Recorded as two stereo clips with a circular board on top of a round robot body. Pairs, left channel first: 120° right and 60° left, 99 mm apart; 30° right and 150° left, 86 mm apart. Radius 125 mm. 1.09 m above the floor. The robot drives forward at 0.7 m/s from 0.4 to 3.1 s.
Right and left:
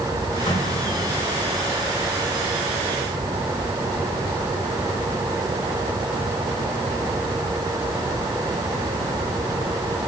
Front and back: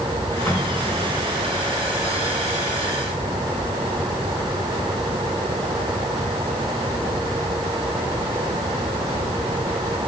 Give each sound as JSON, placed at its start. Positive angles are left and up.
{"t": 0.5, "sound": "an explosion", "azimuth_deg": -100, "distance_m": 4.0}